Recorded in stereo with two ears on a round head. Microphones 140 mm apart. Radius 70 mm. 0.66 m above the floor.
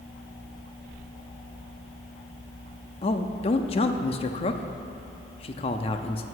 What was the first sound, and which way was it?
A man speaking, 40° left (ahead or behind).